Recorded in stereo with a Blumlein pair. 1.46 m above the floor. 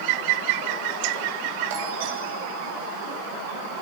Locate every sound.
1.7 s a doorbell: 55° right, 6.5 m